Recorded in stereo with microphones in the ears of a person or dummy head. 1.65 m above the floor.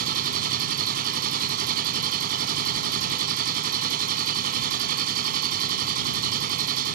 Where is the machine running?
45° right (ahead or behind).